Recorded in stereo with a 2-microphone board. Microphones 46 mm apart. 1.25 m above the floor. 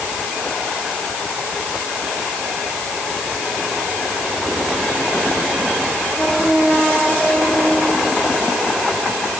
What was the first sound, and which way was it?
Only background noise.